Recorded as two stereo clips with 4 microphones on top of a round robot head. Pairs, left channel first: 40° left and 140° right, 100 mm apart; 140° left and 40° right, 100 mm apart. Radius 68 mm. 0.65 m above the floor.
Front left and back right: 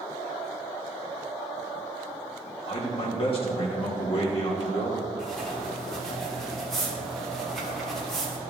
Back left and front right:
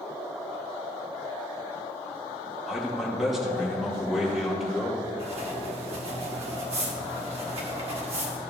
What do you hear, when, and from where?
2.7 s a man speaking: 50° left, 2.5 m
5.2 s writing: 45° right, 2 m